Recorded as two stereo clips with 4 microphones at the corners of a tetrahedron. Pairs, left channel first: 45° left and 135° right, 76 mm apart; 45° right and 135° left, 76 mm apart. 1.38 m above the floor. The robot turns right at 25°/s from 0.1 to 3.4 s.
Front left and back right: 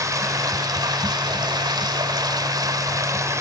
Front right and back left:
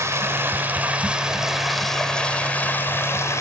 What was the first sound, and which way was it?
Running water, 175° right.